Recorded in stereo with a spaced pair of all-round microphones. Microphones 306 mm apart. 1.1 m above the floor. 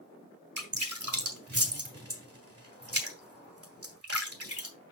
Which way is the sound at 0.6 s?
50° right (ahead or behind).